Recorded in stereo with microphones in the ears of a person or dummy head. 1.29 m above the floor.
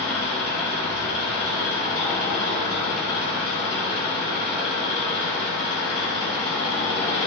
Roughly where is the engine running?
Left.